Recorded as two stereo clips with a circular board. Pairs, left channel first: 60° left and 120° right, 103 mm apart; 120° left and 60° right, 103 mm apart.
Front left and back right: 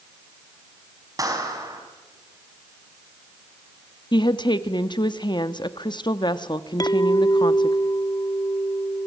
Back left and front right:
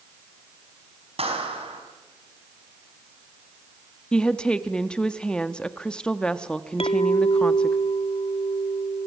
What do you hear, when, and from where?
1.2 s a clap: 65° right, 4.5 m
4.1 s a woman speaking: 40° left, 0.9 m
6.8 s a clink: 110° left, 0.6 m